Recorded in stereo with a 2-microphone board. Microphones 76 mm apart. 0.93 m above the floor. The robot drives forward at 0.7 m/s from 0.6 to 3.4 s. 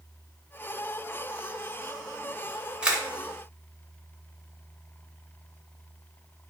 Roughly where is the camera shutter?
Centre.